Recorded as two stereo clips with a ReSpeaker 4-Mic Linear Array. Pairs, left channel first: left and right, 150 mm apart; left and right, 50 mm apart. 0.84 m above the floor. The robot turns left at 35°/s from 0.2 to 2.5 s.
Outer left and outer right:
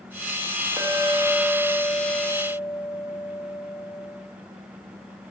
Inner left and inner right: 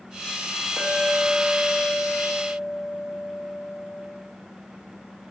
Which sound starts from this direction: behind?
A clink, at 0.8 s.